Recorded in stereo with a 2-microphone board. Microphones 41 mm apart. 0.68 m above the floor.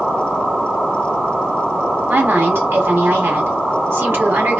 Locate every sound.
2.1 s a woman speaking: 65° right (ahead or behind), 2 m